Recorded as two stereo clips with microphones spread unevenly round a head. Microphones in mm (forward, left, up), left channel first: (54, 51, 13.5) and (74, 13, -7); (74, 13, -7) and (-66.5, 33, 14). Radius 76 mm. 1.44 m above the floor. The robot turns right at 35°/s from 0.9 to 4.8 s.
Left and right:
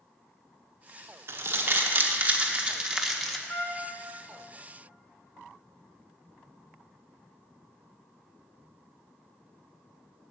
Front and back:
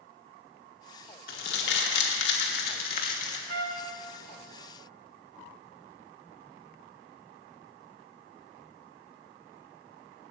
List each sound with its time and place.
1.3 s crumpling: 45° right, 1.3 m; by 3.4 s 30° left, 1.3 m
3.5 s a trumpet: 170° left, 0.9 m; by 3.9 s 175° right, 0.9 m